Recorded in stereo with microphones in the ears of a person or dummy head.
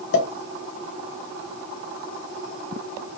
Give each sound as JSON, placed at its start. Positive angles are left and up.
{"t": 0.1, "sound": "a pop", "side_deg": 60, "distance_m": 1.3}